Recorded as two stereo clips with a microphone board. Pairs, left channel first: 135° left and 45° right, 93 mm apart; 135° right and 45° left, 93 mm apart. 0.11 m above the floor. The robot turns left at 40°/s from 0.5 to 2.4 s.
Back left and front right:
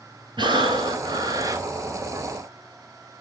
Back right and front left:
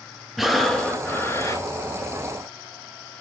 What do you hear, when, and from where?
0.4 s breathing: 45° right, 1.5 m; by 1.6 s 90° right, 1.5 m